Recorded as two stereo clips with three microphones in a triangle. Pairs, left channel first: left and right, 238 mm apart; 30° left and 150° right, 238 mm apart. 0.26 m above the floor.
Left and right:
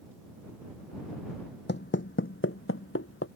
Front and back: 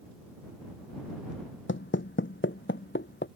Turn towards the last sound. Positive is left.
turn(degrees=70)